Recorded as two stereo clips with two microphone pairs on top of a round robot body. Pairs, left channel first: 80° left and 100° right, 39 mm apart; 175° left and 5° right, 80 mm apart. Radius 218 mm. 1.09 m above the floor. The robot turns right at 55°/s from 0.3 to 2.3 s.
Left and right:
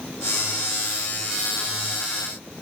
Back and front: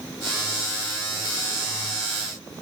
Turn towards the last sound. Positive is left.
No sound to turn to.